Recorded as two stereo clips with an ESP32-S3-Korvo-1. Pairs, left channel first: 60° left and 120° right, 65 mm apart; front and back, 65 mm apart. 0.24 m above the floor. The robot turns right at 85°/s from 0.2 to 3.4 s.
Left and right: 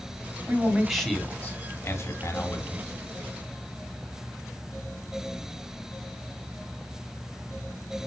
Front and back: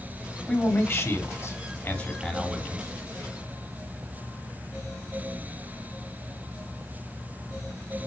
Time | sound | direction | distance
0.5 | a man speaking | 70° right | 2.5 m